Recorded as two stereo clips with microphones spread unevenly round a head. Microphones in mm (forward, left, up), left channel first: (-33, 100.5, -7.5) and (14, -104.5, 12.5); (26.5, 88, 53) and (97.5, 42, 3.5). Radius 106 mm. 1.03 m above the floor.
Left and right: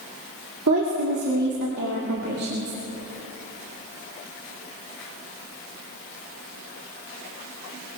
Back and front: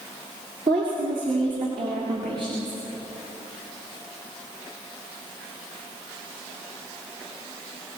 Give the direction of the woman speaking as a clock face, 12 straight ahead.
2 o'clock.